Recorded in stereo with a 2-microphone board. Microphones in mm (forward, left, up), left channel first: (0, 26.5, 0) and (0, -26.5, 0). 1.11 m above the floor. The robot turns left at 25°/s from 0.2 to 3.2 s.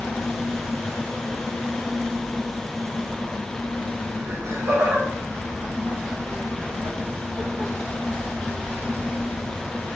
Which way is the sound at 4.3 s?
65° right (ahead or behind).